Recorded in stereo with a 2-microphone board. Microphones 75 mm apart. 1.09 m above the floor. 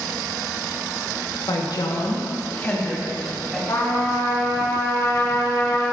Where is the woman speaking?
75° left (ahead or behind), 1.3 m; by 3.6 s centre (ahead or behind), 2.5 m.